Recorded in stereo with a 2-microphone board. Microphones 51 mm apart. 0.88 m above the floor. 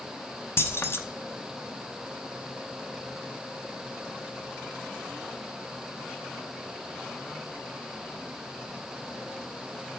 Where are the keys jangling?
55° left (ahead or behind), 0.8 m.